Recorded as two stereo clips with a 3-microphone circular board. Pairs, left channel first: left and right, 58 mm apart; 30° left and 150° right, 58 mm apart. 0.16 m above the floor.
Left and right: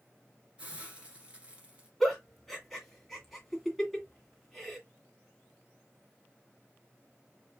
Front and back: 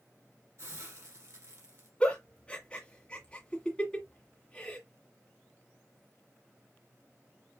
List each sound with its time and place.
0.6 s a hiss: 155° right, 1.6 m
2.0 s a giggle: 15° left, 1.6 m